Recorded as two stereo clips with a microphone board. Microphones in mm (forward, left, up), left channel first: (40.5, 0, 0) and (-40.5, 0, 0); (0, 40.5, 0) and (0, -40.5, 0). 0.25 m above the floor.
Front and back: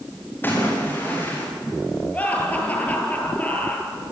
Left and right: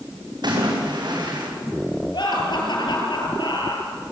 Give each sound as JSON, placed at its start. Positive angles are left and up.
{"t": 0.4, "sound": "a splash", "azimuth_deg": -65, "distance_m": 8.5}
{"t": 2.1, "sound": "laughter", "azimuth_deg": 70, "distance_m": 6.5}